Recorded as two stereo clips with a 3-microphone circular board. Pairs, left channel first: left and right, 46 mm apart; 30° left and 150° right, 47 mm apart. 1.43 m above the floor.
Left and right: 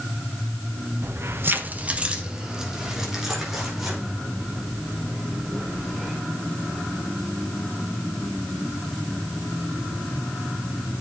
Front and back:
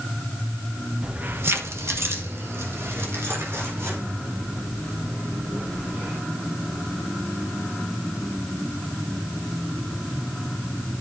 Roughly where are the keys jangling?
Right.